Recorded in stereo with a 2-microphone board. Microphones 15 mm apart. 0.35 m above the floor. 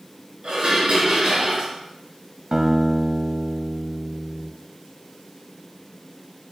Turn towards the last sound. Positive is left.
turn(degrees=-40)  # may be behind; listen again after turning